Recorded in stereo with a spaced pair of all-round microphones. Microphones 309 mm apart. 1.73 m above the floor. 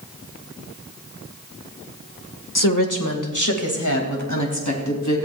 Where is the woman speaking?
85° left, 1.6 m; by 5.3 s 65° left (ahead or behind), 4 m.